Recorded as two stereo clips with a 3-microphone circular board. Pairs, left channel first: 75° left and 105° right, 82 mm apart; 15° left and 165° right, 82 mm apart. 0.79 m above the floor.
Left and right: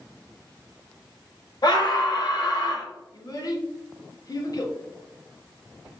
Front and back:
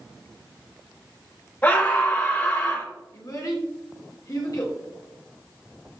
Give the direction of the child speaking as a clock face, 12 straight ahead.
10 o'clock.